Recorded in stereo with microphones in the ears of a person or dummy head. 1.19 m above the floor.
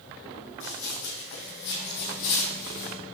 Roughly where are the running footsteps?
Left.